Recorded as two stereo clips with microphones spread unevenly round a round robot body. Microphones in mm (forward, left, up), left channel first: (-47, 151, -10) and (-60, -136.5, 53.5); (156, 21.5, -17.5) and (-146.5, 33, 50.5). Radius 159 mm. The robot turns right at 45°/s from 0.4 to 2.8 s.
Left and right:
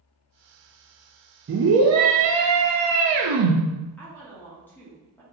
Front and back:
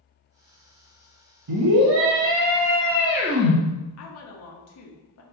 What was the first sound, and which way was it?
A scream, 150° right.